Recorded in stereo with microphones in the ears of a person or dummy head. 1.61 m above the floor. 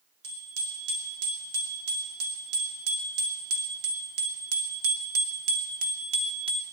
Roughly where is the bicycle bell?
Right.